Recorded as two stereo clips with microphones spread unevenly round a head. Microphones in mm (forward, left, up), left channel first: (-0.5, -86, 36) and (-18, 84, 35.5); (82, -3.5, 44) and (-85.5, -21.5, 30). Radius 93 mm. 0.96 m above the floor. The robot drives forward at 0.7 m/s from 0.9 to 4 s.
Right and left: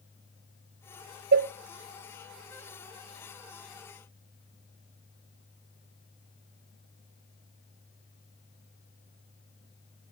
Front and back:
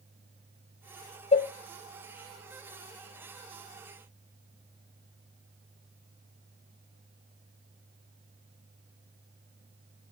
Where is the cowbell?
65° left, 0.6 m; by 1.5 s 80° left, 0.5 m.